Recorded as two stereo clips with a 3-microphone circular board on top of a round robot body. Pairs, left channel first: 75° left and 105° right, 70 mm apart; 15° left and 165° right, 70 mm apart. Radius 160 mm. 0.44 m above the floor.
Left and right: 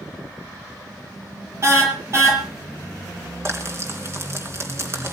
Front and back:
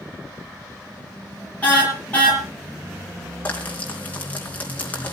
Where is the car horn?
55° right, 6 m.